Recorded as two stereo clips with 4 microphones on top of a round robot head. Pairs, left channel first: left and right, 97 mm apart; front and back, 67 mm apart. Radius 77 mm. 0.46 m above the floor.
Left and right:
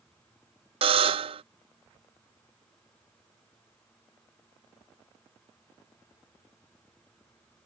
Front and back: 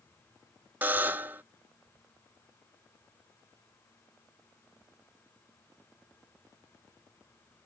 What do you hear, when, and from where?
0.8 s a buzzer: 110° right